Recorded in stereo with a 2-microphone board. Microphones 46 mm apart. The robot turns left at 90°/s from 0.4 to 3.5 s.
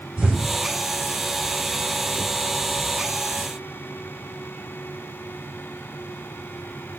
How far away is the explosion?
About 4 m.